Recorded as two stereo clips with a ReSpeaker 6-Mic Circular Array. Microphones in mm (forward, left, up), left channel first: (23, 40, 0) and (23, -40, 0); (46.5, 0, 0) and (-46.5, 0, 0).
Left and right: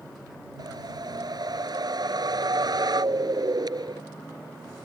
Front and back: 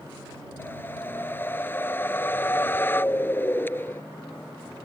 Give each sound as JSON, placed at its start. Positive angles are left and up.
{"t": 0.6, "sound": "a whoosh", "azimuth_deg": -65}